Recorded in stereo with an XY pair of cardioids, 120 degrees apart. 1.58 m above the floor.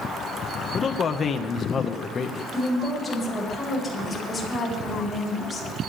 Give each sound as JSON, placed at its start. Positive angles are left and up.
{"t": 0.7, "sound": "a man speaking", "azimuth_deg": 40, "distance_m": 1.9}
{"t": 2.5, "sound": "a woman speaking", "azimuth_deg": 15, "distance_m": 9.0}